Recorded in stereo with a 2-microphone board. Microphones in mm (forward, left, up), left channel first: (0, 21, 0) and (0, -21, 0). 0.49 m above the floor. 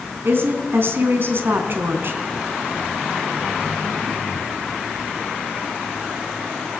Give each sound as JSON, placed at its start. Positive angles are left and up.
{"t": 0.2, "sound": "a woman speaking", "side_deg": -60, "distance_m": 4.0}